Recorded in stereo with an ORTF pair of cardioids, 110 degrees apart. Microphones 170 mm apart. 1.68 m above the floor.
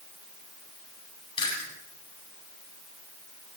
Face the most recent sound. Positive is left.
turn(degrees=30)